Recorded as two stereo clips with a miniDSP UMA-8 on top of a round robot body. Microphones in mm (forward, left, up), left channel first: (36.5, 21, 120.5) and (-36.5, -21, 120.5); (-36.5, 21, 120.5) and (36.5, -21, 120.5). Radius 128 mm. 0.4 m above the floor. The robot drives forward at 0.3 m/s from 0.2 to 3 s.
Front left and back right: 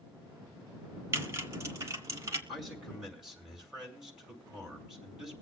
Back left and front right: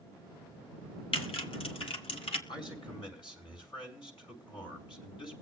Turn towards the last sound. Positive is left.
turn(degrees=125)